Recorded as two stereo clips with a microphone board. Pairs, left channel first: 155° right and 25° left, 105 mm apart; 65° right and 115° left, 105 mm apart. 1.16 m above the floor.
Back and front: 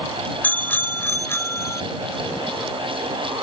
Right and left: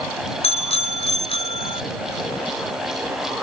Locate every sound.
0.4 s a bicycle bell: 85° right; by 1.8 s 95° right